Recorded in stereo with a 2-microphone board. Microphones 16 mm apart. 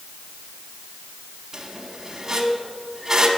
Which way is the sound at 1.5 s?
35° right (ahead or behind).